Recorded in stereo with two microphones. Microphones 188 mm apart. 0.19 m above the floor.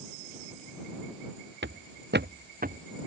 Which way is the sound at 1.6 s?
75° right (ahead or behind).